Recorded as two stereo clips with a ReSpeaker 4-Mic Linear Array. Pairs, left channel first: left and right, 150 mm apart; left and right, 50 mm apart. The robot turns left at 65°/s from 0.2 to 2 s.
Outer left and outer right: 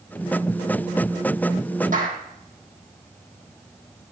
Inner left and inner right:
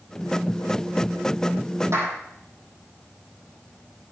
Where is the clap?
65° right (ahead or behind), 4 m; by 2.2 s 60° right (ahead or behind), 4 m.